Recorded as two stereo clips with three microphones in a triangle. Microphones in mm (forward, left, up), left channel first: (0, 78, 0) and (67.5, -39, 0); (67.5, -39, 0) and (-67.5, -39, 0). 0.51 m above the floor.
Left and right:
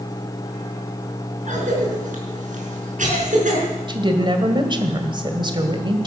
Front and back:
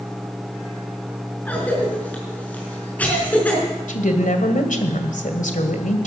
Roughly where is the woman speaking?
Ahead.